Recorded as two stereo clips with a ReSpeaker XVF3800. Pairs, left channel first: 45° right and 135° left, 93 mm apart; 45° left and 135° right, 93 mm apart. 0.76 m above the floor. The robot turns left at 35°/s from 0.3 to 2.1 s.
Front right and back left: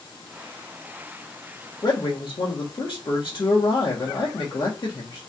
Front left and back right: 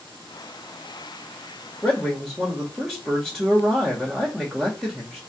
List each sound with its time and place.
1.8 s a man speaking: 35° right, 1.4 m; by 5.2 s 45° right, 1.4 m